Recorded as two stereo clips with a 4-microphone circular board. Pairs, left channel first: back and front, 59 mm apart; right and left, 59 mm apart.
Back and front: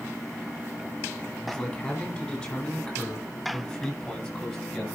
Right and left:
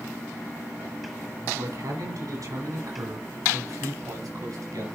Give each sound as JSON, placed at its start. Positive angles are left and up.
{"t": 1.4, "sound": "a man speaking", "azimuth_deg": 105, "distance_m": 4.5}